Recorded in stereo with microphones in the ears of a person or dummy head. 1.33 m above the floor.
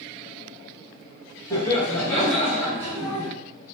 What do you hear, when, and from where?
1.5 s laughter: 15° left (ahead or behind), 1.4 m; by 3.3 s 40° right (ahead or behind), 0.9 m